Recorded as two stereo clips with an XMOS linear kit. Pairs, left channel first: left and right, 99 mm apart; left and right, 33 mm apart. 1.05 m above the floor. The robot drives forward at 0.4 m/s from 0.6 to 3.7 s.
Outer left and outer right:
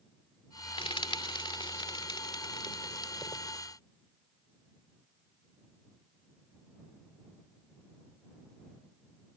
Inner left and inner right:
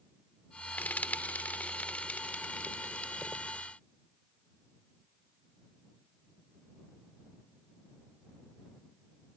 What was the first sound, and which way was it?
Frying, 65° left (ahead or behind).